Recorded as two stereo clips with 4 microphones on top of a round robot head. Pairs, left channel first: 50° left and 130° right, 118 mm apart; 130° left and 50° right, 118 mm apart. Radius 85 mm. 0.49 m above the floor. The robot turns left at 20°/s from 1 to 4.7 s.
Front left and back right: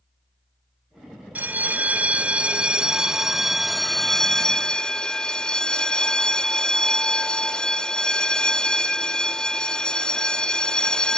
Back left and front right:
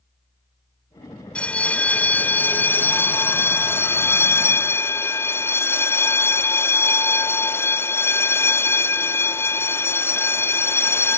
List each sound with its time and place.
1.4 s a bell: 170° right, 0.7 m; by 11.2 s 125° left, 0.7 m